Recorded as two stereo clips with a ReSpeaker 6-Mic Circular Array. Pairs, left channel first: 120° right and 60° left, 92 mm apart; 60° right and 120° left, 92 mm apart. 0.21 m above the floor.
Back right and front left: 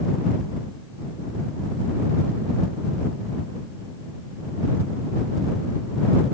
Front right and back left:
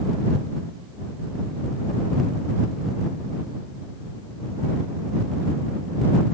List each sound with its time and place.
Only background noise.